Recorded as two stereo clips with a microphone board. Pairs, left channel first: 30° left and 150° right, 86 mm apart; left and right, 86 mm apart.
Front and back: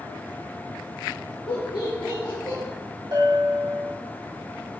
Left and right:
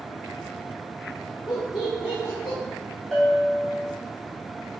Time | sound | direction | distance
1.5 | laughter | 40° left | 0.7 m
3.1 | a bell | 170° left | 0.8 m